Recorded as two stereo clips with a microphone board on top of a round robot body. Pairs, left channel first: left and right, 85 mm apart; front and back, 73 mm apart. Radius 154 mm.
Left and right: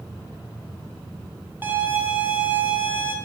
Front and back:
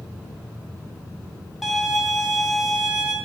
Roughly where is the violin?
Right.